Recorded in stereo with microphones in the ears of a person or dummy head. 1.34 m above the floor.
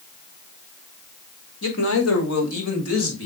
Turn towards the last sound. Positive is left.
turn(degrees=85)